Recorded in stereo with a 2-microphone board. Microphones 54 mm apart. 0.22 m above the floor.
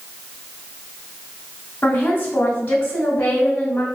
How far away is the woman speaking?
About 1.0 m.